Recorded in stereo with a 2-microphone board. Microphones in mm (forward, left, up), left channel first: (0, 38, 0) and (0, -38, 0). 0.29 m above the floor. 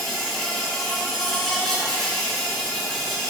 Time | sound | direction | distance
0.0 | an insect | 5° left (ahead or behind) | 3 m